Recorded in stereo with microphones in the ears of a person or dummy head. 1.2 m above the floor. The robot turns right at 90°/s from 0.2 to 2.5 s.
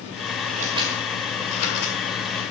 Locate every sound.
0.5 s scissors: 50° right (ahead or behind), 2.0 m; by 2.4 s 55° left (ahead or behind), 2.0 m